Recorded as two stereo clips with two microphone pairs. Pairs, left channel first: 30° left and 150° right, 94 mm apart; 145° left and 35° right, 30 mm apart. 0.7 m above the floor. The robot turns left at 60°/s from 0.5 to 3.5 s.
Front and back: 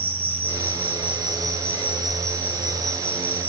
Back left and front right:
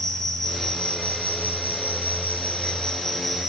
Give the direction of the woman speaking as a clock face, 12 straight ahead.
I don't hear a woman speaking.